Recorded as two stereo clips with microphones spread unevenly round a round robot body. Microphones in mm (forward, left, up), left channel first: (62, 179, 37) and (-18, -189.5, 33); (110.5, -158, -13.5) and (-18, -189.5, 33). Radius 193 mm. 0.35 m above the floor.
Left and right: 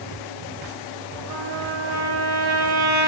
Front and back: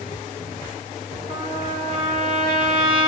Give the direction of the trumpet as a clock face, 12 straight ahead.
4 o'clock.